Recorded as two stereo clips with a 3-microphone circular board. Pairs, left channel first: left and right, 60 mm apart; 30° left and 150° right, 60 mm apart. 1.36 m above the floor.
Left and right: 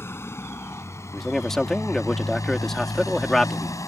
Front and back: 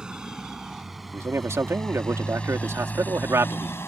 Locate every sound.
0.0 s a motorcycle: 135° left; by 3.9 s 75° left
1.1 s a man speaking: 175° left